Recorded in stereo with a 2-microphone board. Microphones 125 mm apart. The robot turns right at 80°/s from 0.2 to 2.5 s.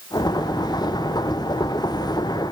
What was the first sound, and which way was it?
Only background noise.